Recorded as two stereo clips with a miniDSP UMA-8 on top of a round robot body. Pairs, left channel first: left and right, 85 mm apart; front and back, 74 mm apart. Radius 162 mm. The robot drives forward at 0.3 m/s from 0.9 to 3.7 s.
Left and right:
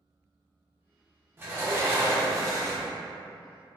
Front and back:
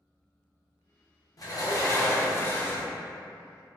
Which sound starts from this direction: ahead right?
A sliding door, at 1.4 s.